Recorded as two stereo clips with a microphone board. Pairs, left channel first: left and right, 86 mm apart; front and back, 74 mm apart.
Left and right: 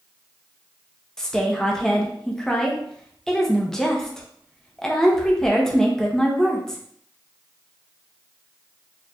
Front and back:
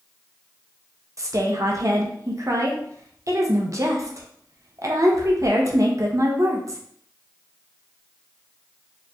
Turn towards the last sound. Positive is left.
turn(degrees=170)